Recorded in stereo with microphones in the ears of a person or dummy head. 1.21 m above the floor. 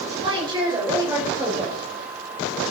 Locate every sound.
0.2 s a woman speaking: 30° right (ahead or behind), 5 m; by 1.8 s 20° right (ahead or behind), 6 m